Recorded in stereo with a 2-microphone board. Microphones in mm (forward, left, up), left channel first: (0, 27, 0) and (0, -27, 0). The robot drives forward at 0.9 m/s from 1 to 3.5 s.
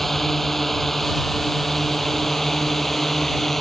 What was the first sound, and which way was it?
A drone, 5° left (ahead or behind).